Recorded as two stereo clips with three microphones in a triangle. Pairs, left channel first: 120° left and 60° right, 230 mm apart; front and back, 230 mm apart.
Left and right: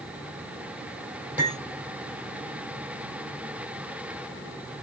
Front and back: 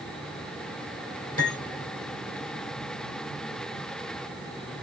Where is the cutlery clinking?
25° left, 3 m.